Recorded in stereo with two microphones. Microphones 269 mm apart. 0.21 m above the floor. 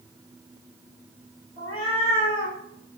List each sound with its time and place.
1.6 s a cat meowing: 30° right (ahead or behind), 1.3 m